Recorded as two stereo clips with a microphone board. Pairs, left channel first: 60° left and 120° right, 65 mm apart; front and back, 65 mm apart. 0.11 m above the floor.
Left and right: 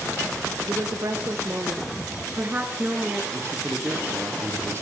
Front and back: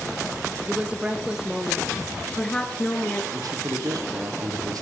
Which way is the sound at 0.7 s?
115° right.